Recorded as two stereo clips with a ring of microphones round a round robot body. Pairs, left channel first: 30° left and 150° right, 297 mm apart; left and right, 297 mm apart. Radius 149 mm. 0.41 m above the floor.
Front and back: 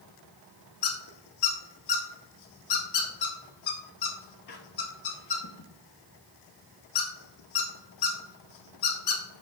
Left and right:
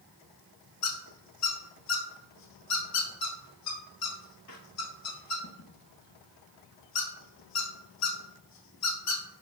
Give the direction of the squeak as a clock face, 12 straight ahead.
10 o'clock.